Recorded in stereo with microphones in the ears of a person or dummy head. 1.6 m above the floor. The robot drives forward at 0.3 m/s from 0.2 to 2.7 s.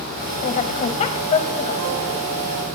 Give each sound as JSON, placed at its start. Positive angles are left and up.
{"t": 0.4, "sound": "a woman speaking", "side_deg": 45, "distance_m": 1.6}